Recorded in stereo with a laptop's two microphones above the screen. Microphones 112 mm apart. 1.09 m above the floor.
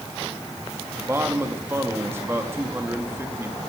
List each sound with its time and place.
1.0 s a man speaking: 20° right (ahead or behind), 1.6 m